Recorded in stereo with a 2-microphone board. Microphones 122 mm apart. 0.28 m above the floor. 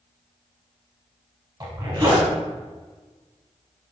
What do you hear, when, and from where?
1.6 s a zipper: 35° right (ahead or behind), 0.9 m